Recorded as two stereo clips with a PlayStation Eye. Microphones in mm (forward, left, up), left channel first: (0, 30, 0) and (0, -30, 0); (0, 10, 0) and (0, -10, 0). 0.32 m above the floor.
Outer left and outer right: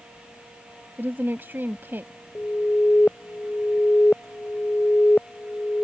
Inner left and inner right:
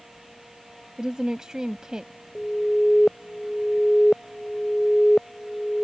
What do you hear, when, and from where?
1.0 s a woman speaking: 40° right (ahead or behind)
2.4 s an alarm: 25° left (ahead or behind)